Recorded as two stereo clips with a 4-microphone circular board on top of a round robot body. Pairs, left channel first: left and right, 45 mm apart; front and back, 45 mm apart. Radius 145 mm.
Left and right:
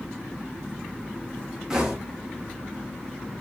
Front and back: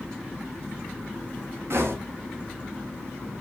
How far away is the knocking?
About 1.0 m.